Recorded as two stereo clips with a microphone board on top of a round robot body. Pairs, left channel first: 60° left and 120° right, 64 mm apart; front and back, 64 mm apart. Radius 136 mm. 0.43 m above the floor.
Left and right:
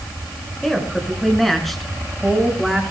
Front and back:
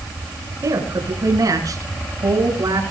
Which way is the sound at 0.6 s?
145° left.